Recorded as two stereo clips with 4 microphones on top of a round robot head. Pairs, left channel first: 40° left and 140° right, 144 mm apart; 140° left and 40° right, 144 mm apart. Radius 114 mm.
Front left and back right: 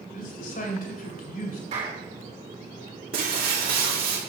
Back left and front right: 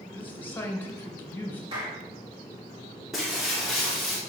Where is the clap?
95° right, 4.5 m.